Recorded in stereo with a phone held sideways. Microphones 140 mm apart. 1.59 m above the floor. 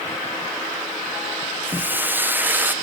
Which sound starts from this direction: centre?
Frying, at 1.6 s.